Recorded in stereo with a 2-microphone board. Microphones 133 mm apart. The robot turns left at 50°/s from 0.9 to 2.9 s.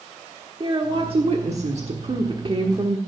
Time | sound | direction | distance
0.6 | a woman speaking | 50° right | 1.2 m